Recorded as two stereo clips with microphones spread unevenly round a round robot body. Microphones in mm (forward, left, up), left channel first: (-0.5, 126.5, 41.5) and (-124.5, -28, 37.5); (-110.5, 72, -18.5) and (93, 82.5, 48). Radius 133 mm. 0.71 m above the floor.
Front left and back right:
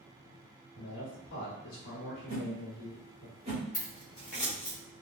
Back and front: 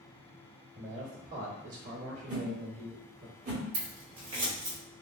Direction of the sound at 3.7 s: 35° right.